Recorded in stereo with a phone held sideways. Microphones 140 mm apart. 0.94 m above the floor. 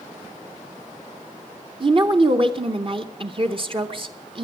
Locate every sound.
1.8 s a woman speaking: 40° right (ahead or behind), 0.8 m